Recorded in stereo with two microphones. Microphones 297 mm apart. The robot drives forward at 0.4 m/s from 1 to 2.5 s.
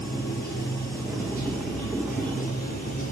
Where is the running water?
30° left (ahead or behind), 4.5 m; by 3.1 s 25° left (ahead or behind), 5 m.